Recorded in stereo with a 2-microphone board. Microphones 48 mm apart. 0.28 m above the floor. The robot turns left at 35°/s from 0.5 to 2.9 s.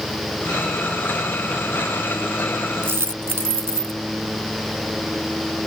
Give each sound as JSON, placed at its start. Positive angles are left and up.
{"t": 2.8, "sound": "a dropped coin", "side_deg": -55}